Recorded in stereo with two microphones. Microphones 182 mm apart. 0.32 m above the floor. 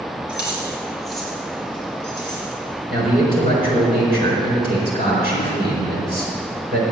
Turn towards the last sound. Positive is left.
turn(degrees=-55)  # may be behind; listen again after turning